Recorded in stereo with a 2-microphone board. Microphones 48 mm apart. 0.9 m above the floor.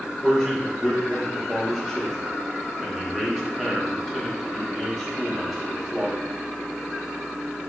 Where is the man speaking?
5° left (ahead or behind), 0.8 m.